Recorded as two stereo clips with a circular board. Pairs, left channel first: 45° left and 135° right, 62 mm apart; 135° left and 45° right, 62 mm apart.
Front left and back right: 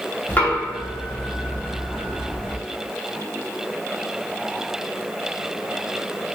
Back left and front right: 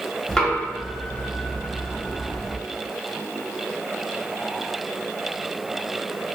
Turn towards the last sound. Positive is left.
turn(degrees=70)